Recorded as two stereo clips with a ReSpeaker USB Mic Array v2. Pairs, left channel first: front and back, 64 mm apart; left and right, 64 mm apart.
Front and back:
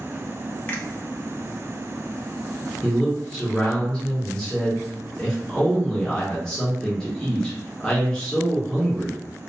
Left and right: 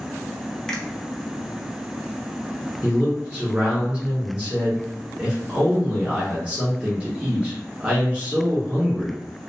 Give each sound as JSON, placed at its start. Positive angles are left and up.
{"t": 0.7, "sound": "a finger snap", "azimuth_deg": 20, "distance_m": 0.6}
{"t": 2.8, "sound": "a man speaking", "azimuth_deg": -60, "distance_m": 0.8}